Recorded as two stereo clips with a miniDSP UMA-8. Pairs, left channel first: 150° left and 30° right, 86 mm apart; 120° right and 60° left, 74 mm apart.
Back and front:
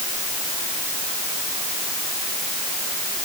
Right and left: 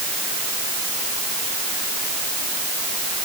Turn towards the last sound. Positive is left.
No sound to turn to.